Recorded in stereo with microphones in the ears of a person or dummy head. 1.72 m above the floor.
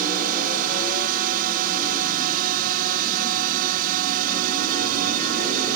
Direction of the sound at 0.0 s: 45° right (ahead or behind).